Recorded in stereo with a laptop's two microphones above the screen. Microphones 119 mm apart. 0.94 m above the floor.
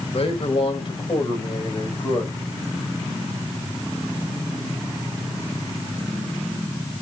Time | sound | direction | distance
0.1 | a man speaking | 60° left (ahead or behind) | 4 m